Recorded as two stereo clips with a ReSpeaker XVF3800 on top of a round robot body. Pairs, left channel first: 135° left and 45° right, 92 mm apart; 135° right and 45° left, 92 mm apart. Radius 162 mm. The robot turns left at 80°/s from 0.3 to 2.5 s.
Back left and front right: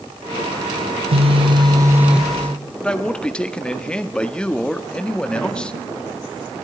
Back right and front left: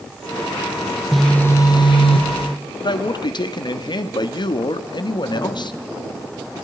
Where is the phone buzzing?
45° right, 1.4 m; by 2.5 s 155° right, 1.4 m.